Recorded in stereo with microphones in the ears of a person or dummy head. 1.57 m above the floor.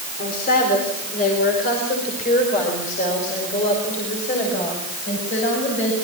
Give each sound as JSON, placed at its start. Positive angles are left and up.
{"t": 0.2, "sound": "a woman speaking", "side_deg": 50, "distance_m": 4.0}